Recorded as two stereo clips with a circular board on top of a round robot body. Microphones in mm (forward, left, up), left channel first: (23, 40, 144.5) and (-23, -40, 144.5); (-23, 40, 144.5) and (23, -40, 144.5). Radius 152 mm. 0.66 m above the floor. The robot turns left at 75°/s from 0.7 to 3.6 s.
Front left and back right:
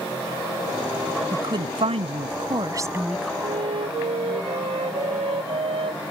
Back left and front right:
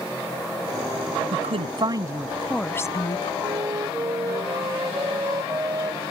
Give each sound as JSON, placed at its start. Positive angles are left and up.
{"t": 1.3, "sound": "a woman speaking", "azimuth_deg": -65}
{"t": 3.4, "sound": "a flute", "azimuth_deg": -100}